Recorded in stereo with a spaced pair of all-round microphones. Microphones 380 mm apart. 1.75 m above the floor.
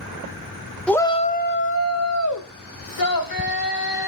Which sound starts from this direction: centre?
A shout, at 0.9 s.